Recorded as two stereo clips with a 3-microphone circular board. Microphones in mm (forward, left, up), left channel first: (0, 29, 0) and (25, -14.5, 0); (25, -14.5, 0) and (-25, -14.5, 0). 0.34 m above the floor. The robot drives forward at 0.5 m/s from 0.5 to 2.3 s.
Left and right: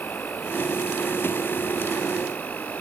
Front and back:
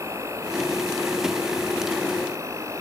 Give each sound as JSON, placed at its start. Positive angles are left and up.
{"t": 0.0, "sound": "an insect", "azimuth_deg": 170}